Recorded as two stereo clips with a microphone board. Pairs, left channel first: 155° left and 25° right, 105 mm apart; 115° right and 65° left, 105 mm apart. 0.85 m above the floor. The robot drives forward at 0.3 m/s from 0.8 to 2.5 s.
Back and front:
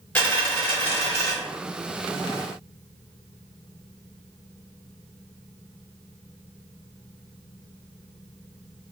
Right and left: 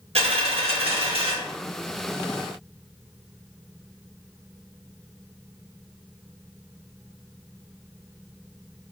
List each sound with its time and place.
0.1 s a dropped coin: 85° left, 0.9 m; by 1.3 s 95° left, 0.9 m